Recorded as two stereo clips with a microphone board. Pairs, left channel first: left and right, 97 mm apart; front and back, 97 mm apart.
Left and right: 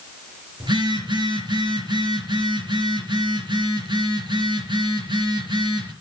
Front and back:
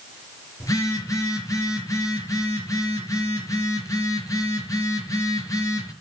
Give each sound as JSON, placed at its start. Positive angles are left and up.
{"t": 0.6, "sound": "a phone buzzing", "azimuth_deg": -55, "distance_m": 4.5}